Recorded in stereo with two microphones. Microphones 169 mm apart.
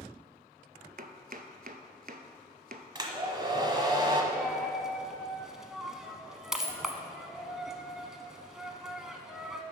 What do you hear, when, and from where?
1.0 s chopping: 60° right (ahead or behind), 0.7 m
3.0 s a hair dryer: 25° right (ahead or behind), 1.1 m
4.3 s a dropped coin: 5° right (ahead or behind), 0.8 m